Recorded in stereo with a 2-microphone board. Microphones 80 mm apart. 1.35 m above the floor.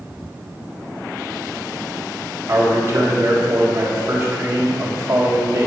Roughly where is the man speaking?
Right.